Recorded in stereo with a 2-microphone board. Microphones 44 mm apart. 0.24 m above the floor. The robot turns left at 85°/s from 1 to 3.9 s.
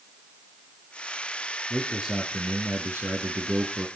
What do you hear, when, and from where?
1.7 s a man speaking: 20° left, 3 m; by 3.9 s 165° right, 3 m